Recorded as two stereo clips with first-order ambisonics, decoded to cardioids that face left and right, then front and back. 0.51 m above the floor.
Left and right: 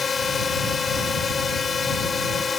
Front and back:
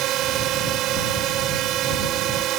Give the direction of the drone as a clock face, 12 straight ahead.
7 o'clock.